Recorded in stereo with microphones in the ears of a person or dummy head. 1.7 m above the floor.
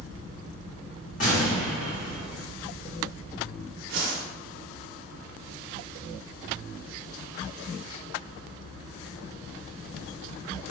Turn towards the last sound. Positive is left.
turn(degrees=-65)  # may be behind; listen again after turning